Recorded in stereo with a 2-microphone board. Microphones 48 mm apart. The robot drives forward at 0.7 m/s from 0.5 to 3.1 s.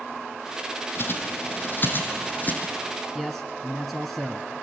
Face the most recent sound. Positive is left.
turn(degrees=0)  # may be behind; listen again after turning